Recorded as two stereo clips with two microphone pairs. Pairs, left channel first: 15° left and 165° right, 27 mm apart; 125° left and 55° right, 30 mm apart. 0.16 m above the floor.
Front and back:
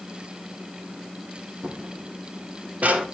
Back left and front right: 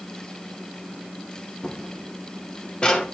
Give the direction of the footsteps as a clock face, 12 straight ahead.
6 o'clock.